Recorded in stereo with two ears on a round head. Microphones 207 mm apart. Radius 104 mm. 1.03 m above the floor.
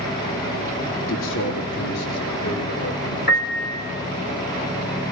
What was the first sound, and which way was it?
A man speaking, 60° left (ahead or behind).